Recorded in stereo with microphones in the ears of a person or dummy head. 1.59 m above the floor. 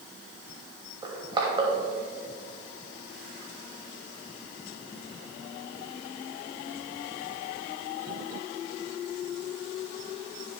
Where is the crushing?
20° right (ahead or behind), 2.5 m.